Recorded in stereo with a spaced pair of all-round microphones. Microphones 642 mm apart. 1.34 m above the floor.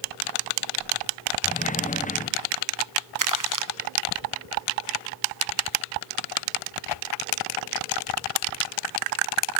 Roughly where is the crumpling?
Right.